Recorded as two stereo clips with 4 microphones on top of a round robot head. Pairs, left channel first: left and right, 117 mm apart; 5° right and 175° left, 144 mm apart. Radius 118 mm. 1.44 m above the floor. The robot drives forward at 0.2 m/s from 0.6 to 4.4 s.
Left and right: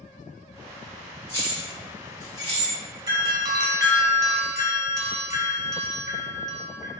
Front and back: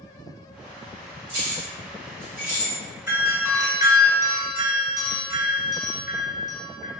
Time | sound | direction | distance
1.3 | keys jangling | 150° left | 1.8 m
3.1 | a doorbell | 120° right | 0.9 m